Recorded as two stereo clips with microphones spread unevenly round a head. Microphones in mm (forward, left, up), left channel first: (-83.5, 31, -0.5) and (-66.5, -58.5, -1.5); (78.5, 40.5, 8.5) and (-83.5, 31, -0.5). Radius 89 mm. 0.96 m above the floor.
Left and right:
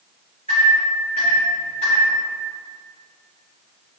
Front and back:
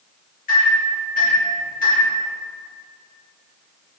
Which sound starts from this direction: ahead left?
A microwave, at 0.5 s.